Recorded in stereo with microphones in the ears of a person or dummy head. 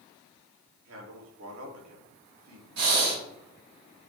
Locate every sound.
0.8 s a man speaking: 85° right, 3 m
2.8 s breathing: 65° right (ahead or behind), 4 m